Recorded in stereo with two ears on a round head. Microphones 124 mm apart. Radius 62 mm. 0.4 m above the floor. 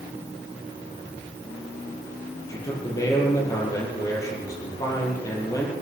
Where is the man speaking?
25° left (ahead or behind), 9 m.